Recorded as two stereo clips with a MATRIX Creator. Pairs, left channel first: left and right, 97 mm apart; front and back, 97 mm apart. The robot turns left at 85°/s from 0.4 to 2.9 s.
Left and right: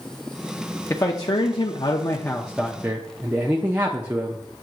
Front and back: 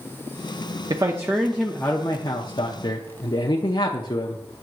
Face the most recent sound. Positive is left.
turn(degrees=-20)